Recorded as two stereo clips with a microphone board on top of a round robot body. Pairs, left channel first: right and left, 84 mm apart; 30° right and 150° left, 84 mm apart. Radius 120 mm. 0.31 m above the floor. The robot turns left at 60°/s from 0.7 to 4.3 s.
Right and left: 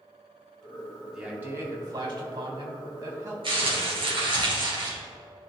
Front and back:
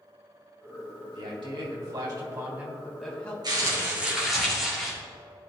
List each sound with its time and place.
1.1 s a man speaking: 175° left, 3 m; by 3.3 s 40° left, 3 m
3.4 s crumpling: 110° left, 3 m; by 4.9 s 60° left, 3 m